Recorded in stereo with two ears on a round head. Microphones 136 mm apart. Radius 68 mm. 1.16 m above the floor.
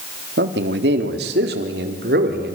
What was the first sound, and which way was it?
A man speaking, 80° right.